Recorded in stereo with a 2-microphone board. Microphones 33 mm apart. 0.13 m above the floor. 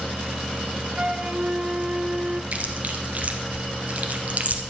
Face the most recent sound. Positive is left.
turn(degrees=-50)  # may be behind; listen again after turning